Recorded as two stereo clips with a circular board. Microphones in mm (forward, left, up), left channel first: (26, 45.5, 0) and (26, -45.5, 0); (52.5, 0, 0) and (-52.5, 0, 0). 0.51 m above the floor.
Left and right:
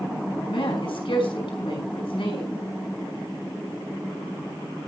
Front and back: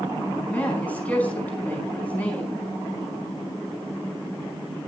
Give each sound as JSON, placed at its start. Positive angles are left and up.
{"t": 0.5, "sound": "a woman speaking", "azimuth_deg": 75, "distance_m": 4.5}